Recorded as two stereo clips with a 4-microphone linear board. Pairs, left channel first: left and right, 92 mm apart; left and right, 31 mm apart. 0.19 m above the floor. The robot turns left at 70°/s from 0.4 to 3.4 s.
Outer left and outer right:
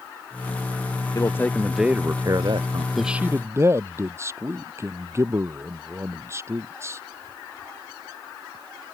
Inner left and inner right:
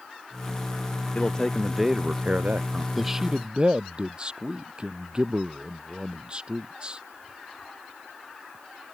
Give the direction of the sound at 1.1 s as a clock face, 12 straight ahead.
11 o'clock.